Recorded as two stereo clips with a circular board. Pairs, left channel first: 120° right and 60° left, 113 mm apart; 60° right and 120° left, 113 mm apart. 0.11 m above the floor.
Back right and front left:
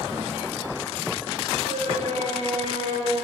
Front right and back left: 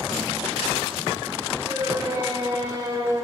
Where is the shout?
60° left, 10 m; by 3.2 s 65° left, 11.5 m.